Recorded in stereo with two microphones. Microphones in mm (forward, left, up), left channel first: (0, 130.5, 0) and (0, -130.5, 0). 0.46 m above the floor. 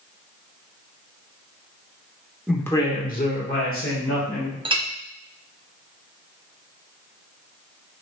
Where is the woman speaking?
5° right (ahead or behind), 1.0 m; by 4.5 s 70° left (ahead or behind), 2.5 m.